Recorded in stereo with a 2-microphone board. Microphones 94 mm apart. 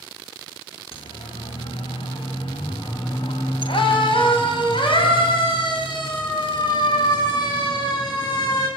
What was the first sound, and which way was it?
A siren, 85° left.